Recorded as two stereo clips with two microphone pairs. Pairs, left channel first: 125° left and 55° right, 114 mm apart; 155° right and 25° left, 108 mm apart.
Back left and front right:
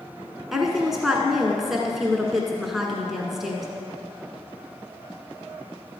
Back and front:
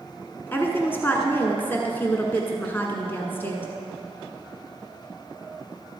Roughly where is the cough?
No cough in this recording.